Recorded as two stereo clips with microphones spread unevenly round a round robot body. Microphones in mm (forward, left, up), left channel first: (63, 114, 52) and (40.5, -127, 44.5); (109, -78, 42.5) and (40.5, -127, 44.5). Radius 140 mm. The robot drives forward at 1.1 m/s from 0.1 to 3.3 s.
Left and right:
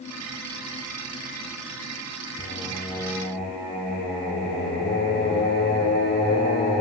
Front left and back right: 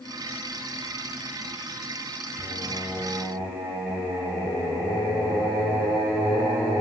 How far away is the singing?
About 3 m.